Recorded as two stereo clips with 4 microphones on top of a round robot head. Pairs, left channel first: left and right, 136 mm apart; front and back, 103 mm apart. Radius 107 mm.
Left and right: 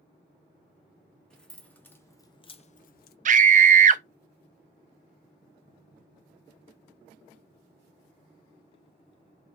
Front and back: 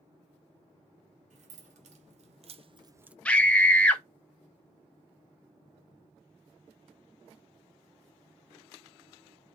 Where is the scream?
80° right, 0.6 m.